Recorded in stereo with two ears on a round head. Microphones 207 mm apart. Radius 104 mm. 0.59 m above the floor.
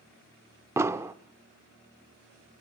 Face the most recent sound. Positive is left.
turn(degrees=-10)  # may be behind; listen again after turning